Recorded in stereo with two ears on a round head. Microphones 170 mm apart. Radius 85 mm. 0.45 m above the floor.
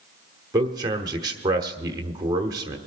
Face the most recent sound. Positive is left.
turn(degrees=-20)  # may be behind; listen again after turning